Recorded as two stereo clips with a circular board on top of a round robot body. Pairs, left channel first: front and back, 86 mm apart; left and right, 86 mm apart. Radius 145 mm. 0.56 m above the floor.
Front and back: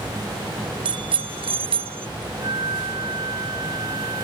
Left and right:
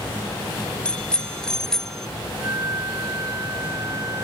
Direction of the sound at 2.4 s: 145° right.